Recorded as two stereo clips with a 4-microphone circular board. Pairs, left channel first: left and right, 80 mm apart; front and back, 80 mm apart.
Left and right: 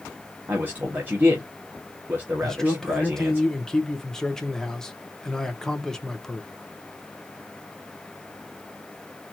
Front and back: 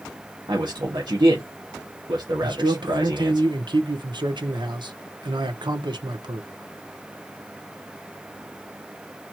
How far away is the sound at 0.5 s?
About 1.3 m.